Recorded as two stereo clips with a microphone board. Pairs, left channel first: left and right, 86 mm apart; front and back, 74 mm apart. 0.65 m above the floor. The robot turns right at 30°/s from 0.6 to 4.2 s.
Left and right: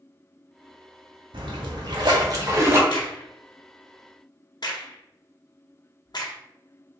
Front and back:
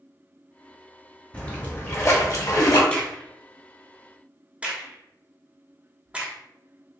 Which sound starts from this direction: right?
A splash, at 1.3 s.